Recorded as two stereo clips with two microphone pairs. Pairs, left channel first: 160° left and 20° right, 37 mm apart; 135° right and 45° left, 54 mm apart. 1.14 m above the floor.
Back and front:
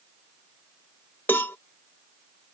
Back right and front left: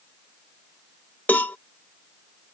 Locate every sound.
1.3 s a cowbell: 170° left